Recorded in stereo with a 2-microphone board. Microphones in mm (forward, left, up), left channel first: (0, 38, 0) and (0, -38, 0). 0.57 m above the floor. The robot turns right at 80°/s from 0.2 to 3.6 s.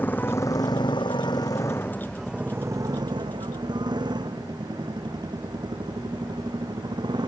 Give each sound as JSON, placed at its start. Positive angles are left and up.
{"t": 0.0, "sound": "a motorcycle", "side_deg": 25}